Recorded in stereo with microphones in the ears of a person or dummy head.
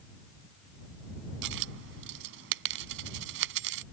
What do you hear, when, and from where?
1.4 s a dropped coin: 55° right (ahead or behind)